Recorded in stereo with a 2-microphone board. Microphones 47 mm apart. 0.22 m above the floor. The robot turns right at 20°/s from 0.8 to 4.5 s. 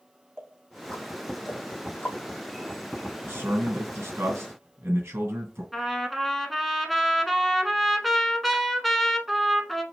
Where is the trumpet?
Centre (ahead or behind), 0.9 m.